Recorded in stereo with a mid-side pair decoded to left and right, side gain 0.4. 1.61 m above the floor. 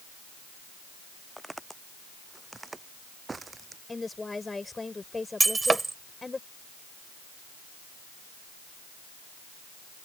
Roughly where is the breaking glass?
Ahead right.